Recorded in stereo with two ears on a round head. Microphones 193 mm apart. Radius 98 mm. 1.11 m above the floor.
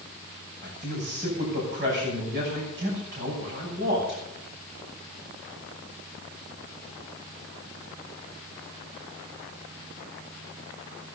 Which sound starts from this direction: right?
A man speaking, at 0.6 s.